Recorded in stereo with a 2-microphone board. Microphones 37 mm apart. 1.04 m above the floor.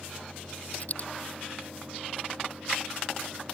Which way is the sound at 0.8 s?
45° left (ahead or behind).